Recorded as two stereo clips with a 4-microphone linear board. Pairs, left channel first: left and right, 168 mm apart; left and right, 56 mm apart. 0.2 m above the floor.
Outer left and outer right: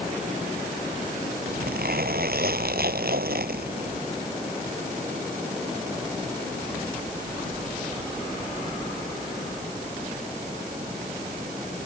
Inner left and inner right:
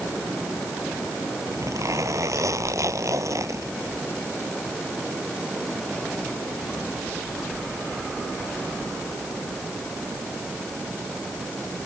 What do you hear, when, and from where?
1.5 s a zipper: 75° right (ahead or behind)